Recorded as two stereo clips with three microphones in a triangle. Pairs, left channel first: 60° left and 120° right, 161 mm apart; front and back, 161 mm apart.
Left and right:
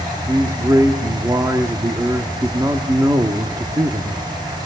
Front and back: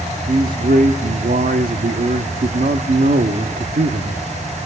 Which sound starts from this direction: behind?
A man speaking, at 0.3 s.